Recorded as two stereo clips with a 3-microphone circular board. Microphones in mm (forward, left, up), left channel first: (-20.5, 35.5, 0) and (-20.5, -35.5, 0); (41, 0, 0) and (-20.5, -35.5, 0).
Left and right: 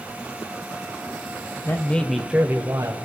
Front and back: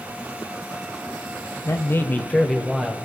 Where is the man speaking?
50° left, 1.3 m; by 3.0 s 70° right, 1.6 m.